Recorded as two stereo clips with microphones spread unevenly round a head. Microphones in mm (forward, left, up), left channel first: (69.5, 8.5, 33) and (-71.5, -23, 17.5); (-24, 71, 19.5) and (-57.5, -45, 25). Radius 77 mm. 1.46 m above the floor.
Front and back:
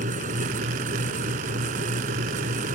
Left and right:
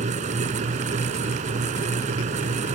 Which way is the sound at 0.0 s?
130° right.